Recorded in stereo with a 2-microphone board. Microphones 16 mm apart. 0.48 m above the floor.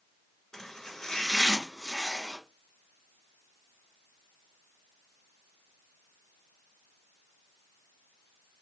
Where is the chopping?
35° left (ahead or behind), 1.1 m.